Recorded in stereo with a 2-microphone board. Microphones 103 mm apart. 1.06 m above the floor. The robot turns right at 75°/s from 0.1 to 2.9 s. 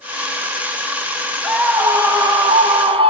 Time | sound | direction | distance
1.4 | a scream | straight behind | 1.4 m